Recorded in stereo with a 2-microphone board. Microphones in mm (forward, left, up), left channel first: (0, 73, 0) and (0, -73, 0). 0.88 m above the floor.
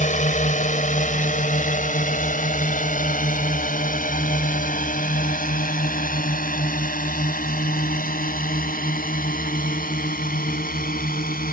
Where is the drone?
60° left (ahead or behind); by 11.5 s 80° left.